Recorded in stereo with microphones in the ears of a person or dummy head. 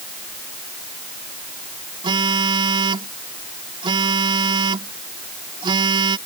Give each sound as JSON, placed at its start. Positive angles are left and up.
{"t": 2.0, "sound": "a phone buzzing", "side_deg": -30}